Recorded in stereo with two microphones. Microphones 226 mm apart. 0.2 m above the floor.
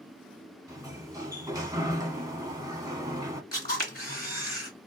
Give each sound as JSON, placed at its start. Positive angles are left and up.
{"t": 0.7, "sound": "a sliding door", "side_deg": -15, "distance_m": 0.8}
{"t": 3.5, "sound": "a camera shutter", "side_deg": 40, "distance_m": 2.0}